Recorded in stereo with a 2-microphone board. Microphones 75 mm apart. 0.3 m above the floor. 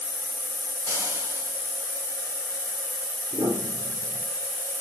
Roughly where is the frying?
Right.